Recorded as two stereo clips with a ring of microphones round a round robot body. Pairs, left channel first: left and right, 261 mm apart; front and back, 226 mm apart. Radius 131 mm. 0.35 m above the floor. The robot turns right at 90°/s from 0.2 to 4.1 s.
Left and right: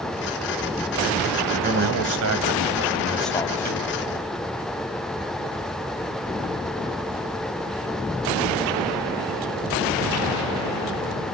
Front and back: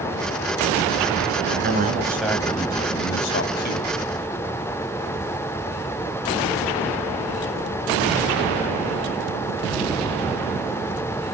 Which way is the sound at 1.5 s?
160° right.